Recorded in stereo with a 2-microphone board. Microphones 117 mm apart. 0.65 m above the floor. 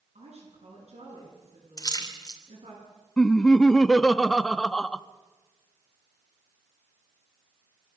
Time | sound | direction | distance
0.1 | a woman speaking | 70° right (ahead or behind) | 9.5 m
1.8 | a splash | 35° left (ahead or behind) | 2.5 m
3.2 | laughter | 5° left (ahead or behind) | 0.5 m